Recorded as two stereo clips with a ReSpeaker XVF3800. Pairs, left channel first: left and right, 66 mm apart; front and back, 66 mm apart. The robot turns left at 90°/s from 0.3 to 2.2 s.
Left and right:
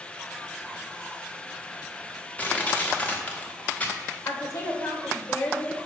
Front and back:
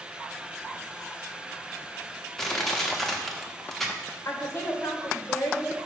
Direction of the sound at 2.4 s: 75° left.